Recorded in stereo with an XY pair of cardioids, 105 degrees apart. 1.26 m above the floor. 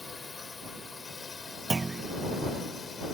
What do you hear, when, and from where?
0.0 s a drone: 25° left; by 3.1 s 35° left
1.7 s a clunk: 30° right